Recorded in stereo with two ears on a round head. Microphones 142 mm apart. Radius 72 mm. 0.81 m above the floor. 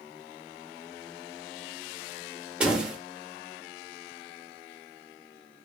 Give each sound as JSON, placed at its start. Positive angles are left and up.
{"t": 2.6, "sound": "a door slam", "side_deg": -5, "distance_m": 0.9}